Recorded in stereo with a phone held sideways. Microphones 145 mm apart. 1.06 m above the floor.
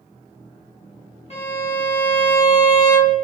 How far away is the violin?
About 1.4 m.